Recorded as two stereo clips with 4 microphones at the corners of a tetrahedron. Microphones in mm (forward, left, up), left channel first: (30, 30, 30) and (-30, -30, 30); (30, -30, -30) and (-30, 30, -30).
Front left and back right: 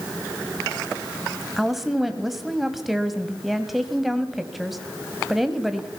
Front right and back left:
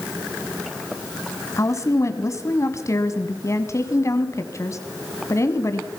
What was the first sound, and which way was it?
A woman speaking, 50° right.